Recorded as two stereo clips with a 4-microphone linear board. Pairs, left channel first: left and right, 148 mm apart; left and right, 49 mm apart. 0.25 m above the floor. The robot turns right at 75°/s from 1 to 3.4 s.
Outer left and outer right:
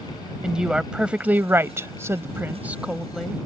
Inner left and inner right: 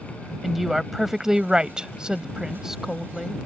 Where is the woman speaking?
5° right (ahead or behind); by 3.4 s 5° left (ahead or behind).